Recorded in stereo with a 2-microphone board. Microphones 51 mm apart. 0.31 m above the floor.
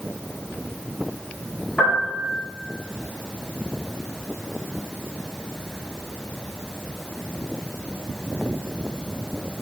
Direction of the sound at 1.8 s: 25° left (ahead or behind).